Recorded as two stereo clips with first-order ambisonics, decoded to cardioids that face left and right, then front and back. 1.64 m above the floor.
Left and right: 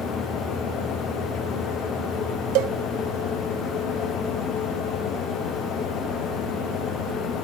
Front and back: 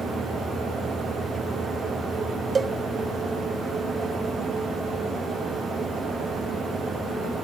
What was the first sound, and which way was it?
A cowbell, 105° right.